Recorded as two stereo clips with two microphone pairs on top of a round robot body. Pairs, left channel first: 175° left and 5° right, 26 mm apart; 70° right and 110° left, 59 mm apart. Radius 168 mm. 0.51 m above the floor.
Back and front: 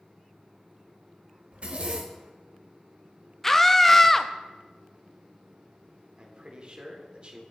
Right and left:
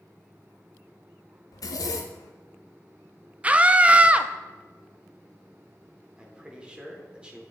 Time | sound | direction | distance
1.5 | a zipper | 50° right | 0.6 m
3.4 | a scream | 110° left | 0.8 m
6.2 | a man speaking | 40° left | 2.5 m